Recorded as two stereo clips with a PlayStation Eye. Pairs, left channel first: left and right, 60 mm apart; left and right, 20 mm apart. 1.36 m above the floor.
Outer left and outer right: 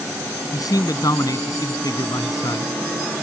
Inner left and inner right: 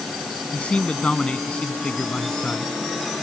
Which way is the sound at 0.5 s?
90° left.